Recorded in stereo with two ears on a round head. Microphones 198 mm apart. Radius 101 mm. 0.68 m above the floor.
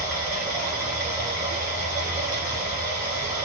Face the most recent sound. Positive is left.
turn(degrees=-10)  # may be behind; listen again after turning